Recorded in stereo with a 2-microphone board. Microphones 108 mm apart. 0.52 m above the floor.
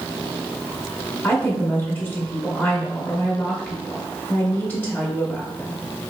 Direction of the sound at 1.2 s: 15° left (ahead or behind).